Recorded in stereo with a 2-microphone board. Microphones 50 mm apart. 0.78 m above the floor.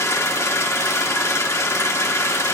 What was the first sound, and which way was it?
An engine running, 65° left (ahead or behind).